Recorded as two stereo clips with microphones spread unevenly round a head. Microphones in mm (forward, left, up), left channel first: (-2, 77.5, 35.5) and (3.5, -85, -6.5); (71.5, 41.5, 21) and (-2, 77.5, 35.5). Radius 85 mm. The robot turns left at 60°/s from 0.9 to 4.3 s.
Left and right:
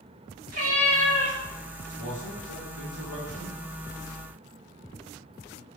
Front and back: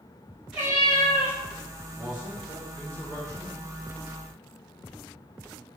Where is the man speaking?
105° left, 1.8 m; by 3.5 s 10° left, 1.8 m.